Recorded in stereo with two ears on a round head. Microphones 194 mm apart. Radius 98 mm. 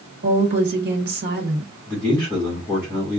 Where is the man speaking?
5° left (ahead or behind), 2.5 m.